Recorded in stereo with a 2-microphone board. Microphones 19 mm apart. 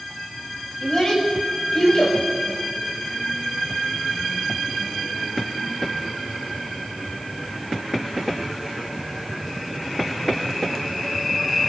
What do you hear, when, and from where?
0.8 s a child speaking: 40° left (ahead or behind), 6 m; by 2.2 s 50° left (ahead or behind), 4 m